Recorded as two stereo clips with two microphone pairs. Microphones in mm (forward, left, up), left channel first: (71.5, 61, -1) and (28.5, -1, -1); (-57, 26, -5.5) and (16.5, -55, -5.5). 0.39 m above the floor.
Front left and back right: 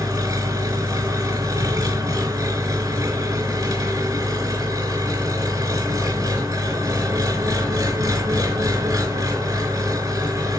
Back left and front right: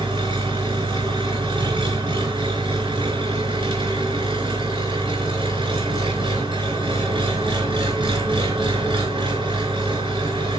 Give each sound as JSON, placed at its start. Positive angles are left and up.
{"t": 0.0, "sound": "an engine running", "azimuth_deg": -90, "distance_m": 4.0}